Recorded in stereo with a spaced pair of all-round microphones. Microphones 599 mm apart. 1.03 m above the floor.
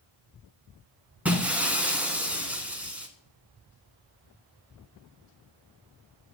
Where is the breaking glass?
Centre (ahead or behind), 1.2 m.